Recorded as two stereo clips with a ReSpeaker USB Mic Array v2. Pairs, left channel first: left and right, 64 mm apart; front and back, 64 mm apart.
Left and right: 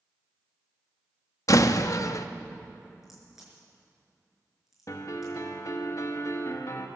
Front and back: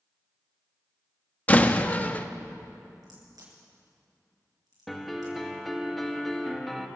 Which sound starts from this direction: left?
A piano, at 4.9 s.